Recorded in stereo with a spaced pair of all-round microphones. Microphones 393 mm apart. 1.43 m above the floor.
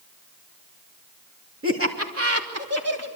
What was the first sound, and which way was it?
Laughter, 35° right (ahead or behind).